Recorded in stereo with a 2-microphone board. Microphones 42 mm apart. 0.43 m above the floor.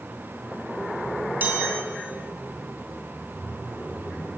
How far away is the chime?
About 5 m.